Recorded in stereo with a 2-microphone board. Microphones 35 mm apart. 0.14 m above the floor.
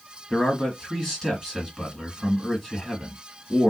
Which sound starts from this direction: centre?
A man speaking, at 0.3 s.